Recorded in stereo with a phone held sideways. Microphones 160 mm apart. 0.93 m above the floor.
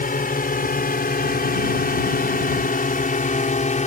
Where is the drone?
65° left (ahead or behind); by 3.9 s 50° left (ahead or behind).